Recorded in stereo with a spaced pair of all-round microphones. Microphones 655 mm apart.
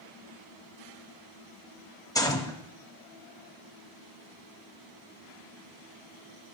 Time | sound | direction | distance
2.1 | a gunshot | 5° left (ahead or behind) | 0.6 m